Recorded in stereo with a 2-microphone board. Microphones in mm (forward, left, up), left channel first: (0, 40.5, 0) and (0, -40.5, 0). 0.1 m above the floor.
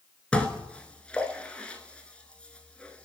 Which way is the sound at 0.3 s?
15° left (ahead or behind).